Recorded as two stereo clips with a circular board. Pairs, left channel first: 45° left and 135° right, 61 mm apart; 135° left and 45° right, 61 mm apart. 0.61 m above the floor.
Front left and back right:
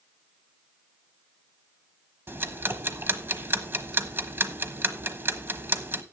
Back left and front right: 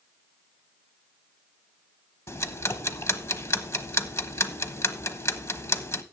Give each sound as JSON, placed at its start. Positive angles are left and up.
{"t": 2.3, "sound": "ticking", "azimuth_deg": 175, "distance_m": 1.1}